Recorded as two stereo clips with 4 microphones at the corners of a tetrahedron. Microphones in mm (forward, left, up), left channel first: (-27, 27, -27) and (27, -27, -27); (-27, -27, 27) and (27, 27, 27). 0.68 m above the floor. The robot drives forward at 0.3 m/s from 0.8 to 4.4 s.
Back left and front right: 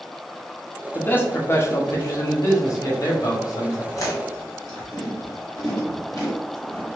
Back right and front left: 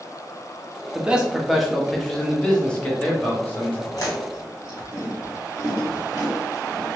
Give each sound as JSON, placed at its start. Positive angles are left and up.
{"t": 0.9, "sound": "a man speaking", "azimuth_deg": 105, "distance_m": 0.7}
{"t": 3.9, "sound": "chewing", "azimuth_deg": 180, "distance_m": 1.7}